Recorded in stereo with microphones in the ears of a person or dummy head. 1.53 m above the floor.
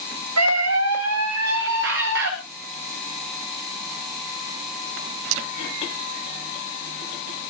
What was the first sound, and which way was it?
A scream, 85° right.